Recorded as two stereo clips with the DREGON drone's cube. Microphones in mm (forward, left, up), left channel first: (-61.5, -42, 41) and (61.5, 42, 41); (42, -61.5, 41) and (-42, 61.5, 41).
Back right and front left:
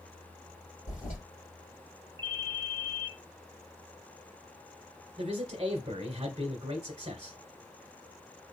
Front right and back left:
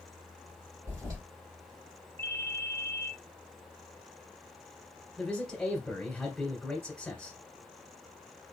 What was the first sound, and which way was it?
A toilet flushing, 170° right.